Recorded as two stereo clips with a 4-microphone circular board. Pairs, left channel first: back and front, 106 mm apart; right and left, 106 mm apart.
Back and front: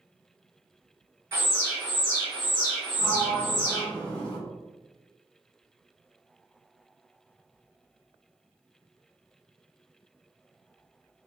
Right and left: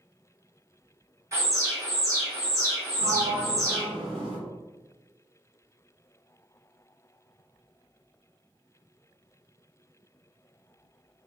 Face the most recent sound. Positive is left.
turn(degrees=105)